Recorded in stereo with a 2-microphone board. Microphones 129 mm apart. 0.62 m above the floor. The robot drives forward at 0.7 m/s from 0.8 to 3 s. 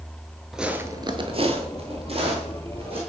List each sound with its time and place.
0.5 s footsteps: centre (ahead or behind), 0.6 m; by 3.0 s 45° right (ahead or behind), 2 m